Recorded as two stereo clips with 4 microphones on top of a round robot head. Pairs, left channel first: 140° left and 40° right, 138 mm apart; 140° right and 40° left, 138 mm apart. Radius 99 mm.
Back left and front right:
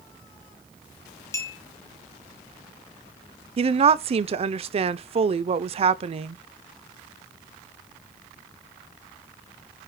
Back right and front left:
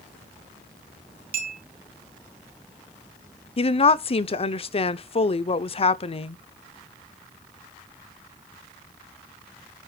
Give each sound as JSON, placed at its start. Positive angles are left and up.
{"t": 1.3, "sound": "a clink", "azimuth_deg": 70, "distance_m": 2.0}
{"t": 3.6, "sound": "a woman speaking", "azimuth_deg": -90, "distance_m": 0.7}